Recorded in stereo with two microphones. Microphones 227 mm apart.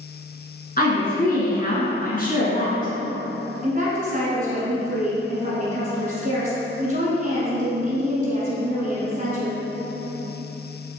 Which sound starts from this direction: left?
A woman speaking, at 0.8 s.